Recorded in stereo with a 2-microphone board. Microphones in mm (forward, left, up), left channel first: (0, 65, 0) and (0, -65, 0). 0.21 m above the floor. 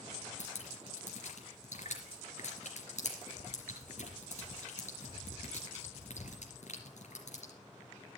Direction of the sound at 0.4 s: 65° left (ahead or behind).